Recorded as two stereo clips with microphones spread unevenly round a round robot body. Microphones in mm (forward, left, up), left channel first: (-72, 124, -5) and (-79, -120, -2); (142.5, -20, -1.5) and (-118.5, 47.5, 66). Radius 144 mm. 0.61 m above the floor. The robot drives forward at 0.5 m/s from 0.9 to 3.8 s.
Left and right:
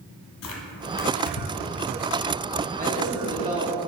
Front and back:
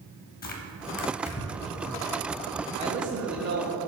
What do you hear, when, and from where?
0.4 s tearing paper: 45° left, 0.9 m; by 1.7 s 75° left, 0.7 m
2.8 s a man speaking: 120° right, 0.9 m; by 3.7 s 145° right, 1.2 m